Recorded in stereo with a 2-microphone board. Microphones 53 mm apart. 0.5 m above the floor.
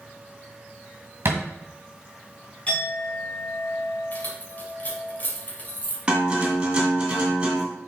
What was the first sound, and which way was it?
A thud, 50° right (ahead or behind).